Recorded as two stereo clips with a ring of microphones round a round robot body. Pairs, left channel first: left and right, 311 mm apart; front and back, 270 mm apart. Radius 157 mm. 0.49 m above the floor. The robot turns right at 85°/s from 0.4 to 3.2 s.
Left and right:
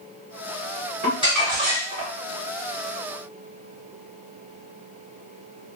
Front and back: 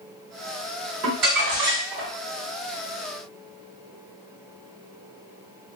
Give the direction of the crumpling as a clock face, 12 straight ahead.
7 o'clock.